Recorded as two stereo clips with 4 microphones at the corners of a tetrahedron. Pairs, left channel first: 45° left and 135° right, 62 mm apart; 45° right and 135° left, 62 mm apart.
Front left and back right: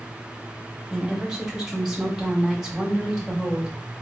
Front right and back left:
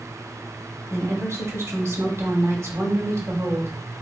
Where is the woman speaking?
145° left, 1.7 m.